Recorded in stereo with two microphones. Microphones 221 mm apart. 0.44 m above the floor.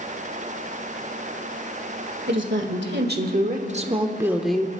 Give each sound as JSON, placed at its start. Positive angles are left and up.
{"t": 2.3, "sound": "a woman speaking", "side_deg": -60, "distance_m": 1.7}